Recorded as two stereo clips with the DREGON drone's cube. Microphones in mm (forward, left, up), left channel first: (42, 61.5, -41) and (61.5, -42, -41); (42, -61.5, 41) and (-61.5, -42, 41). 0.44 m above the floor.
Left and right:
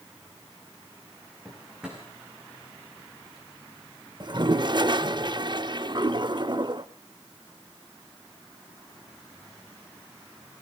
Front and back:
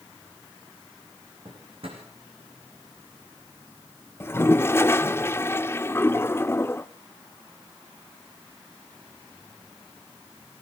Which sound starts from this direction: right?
A toilet flushing, at 4.2 s.